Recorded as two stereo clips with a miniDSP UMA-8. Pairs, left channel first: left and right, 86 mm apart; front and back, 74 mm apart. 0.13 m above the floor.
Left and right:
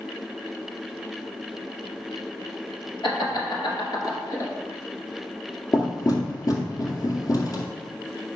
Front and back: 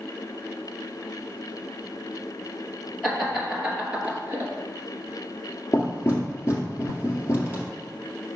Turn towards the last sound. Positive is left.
turn(degrees=50)